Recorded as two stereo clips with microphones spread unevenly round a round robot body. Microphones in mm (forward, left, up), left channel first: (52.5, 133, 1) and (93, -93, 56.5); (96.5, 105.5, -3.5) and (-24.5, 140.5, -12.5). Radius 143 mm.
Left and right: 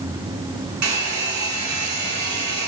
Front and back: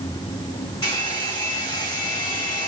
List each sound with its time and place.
0.8 s a hair dryer: 95° right, 2.0 m